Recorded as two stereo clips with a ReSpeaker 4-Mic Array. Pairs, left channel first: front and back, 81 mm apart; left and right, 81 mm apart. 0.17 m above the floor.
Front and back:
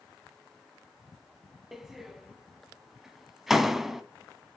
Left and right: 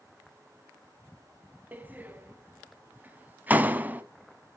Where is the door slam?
100° right, 0.9 m.